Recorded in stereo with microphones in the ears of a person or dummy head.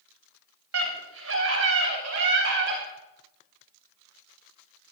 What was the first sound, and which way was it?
A scream, 80° right.